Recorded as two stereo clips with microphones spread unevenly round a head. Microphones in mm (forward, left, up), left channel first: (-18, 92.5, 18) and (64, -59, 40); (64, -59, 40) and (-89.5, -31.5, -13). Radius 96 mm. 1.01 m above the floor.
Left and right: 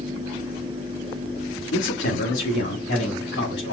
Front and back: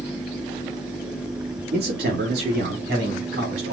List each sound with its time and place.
1.7 s a man speaking: 145° left, 2 m; by 3.7 s 120° left, 3 m